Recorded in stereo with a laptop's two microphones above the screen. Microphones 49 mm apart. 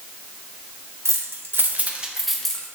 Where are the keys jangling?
70° right (ahead or behind), 1.1 m; by 2.7 s 15° left (ahead or behind), 1.1 m.